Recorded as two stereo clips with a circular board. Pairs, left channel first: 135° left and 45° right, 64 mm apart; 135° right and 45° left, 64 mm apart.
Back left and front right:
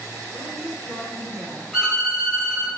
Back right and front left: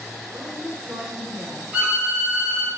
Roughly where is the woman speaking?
Left.